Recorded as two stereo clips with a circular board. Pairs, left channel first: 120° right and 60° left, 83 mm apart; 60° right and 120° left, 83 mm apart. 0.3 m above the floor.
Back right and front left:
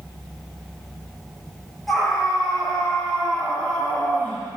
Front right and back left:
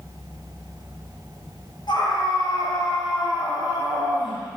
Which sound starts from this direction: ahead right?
A scream, at 1.9 s.